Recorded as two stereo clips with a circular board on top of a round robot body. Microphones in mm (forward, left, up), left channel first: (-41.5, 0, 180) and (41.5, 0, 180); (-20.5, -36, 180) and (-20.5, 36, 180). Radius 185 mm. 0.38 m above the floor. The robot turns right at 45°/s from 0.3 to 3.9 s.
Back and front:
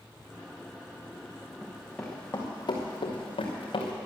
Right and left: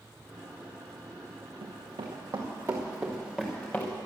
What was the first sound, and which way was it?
Running footsteps, 80° left.